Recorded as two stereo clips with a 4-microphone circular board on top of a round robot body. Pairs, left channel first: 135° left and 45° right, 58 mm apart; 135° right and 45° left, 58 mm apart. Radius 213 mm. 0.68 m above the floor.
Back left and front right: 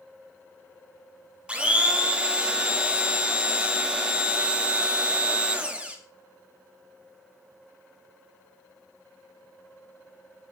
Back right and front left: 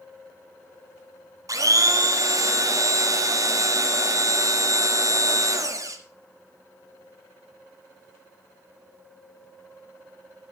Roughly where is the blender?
Ahead left.